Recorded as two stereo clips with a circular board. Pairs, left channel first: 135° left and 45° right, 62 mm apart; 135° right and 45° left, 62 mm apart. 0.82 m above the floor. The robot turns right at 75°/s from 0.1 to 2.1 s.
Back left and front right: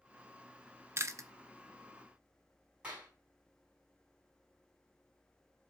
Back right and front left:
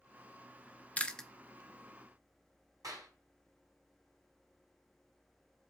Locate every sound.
1.0 s chewing: 75° right, 0.6 m; by 1.3 s 50° right, 0.6 m
2.8 s a clap: 25° left, 5 m